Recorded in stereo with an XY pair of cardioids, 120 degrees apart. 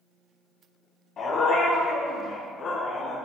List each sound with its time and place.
1.2 s a dog barking: 50° left, 4 m